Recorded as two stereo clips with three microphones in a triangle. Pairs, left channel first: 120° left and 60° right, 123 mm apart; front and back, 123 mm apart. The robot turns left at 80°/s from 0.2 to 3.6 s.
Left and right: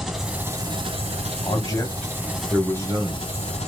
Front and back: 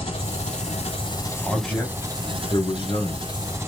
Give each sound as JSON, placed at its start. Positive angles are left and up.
{"t": 0.0, "sound": "an engine running", "azimuth_deg": 30, "distance_m": 1.3}
{"t": 1.4, "sound": "a man speaking", "azimuth_deg": 95, "distance_m": 1.4}